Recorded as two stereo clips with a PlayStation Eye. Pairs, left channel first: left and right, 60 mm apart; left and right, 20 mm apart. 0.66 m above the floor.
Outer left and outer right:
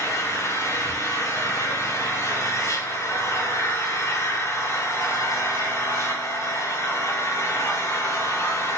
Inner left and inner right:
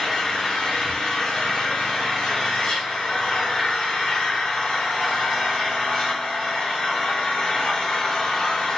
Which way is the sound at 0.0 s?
55° left (ahead or behind).